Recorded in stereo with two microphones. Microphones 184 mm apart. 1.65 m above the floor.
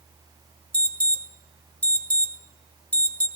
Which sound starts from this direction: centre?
An alarm, at 0.7 s.